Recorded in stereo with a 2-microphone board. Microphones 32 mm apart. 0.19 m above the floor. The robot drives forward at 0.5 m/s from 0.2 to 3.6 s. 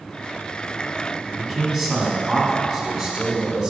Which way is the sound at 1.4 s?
Centre (ahead or behind).